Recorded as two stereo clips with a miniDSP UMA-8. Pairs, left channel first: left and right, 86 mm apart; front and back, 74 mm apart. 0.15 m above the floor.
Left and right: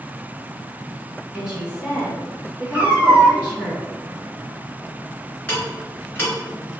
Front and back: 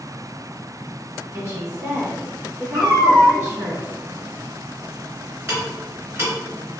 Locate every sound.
1.3 s a woman speaking: 160° right, 1.5 m
2.7 s a cat meowing: 160° right, 0.8 m
5.5 s ticking: 155° left, 2.0 m